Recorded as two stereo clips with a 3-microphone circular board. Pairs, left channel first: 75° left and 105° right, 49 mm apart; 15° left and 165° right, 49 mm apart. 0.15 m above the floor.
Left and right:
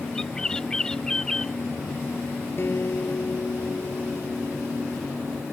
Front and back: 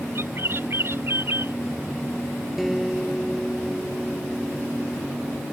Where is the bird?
150° left.